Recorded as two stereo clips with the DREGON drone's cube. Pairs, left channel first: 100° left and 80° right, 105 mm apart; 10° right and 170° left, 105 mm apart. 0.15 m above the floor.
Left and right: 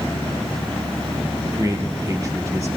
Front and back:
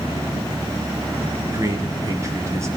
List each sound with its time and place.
1.5 s a man speaking: 135° right, 3 m